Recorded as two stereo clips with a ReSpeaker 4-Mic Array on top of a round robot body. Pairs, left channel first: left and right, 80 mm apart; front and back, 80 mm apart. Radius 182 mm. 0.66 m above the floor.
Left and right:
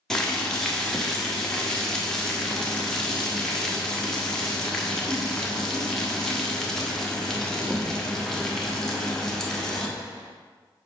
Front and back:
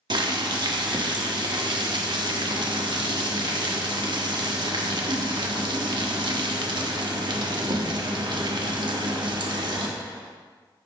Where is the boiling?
175° left, 1.2 m.